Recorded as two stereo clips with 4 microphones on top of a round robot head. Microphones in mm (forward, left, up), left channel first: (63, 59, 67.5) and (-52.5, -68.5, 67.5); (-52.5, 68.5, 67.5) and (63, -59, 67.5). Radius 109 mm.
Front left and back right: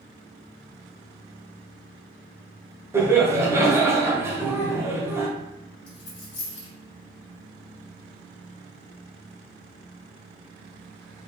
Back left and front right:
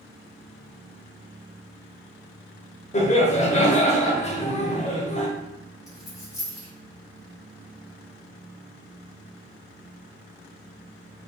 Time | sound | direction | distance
2.9 | laughter | 160° left | 1.1 m
5.9 | a dropped coin | 60° left | 1.8 m